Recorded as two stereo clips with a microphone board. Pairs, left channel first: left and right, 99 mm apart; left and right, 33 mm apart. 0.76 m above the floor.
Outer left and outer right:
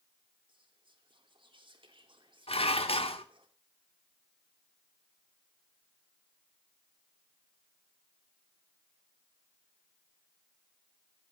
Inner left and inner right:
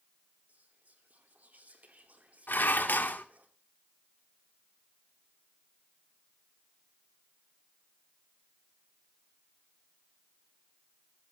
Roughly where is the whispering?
Right.